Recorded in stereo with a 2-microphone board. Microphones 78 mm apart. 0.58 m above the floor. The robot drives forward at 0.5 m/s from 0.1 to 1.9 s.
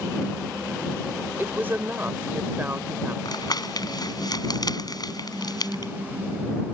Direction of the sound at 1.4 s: 25° right (ahead or behind).